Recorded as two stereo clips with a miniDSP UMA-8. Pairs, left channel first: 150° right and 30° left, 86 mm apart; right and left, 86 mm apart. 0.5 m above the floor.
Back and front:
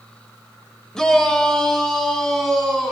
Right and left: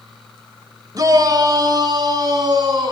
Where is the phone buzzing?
I don't hear a phone buzzing.